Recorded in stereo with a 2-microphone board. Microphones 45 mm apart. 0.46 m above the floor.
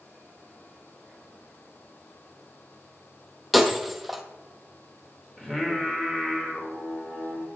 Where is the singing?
15° left (ahead or behind), 1.5 m.